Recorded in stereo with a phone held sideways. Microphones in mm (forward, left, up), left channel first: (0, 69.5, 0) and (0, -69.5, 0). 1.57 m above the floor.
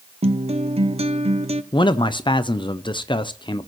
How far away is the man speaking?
About 0.5 m.